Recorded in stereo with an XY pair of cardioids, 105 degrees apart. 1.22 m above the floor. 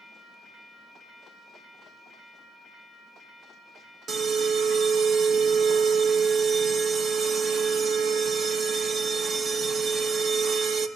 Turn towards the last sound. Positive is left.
turn(degrees=-50)